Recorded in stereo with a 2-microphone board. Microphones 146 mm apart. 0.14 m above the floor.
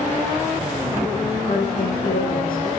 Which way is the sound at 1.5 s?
80° left.